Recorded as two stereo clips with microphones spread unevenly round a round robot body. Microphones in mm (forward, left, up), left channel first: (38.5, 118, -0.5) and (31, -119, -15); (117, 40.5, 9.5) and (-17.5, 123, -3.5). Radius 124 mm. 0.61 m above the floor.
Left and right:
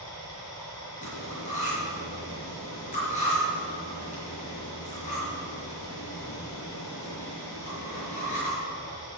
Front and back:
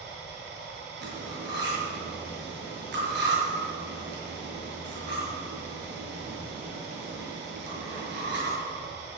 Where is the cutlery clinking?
150° left, 6.5 m.